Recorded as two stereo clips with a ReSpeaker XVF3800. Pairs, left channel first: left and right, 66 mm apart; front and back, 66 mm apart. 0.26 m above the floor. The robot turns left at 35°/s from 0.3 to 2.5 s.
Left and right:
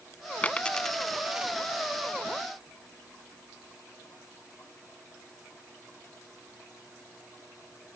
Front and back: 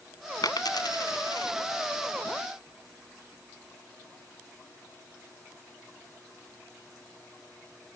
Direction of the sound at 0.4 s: 25° left.